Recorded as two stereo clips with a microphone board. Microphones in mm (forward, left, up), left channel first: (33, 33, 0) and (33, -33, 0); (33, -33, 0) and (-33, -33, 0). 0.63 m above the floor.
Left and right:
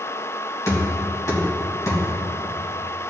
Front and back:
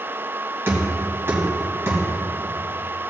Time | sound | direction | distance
0.7 | knocking | 125° left | 3 m